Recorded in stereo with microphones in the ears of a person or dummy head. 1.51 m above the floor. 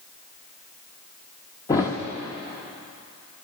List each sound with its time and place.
1.7 s a thud: 15° left (ahead or behind), 0.9 m